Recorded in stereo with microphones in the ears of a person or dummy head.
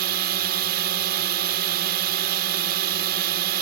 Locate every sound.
0.0 s a drone: 45° right (ahead or behind)